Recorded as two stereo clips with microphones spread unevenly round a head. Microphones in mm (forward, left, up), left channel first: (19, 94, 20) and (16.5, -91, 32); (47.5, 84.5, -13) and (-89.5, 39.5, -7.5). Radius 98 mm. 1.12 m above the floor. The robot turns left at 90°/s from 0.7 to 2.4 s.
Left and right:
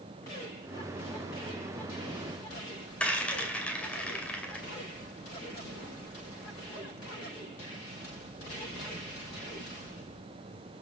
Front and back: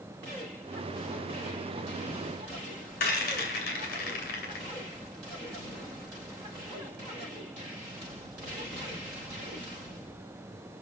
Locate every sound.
3.0 s a rattle: 5° left, 2.5 m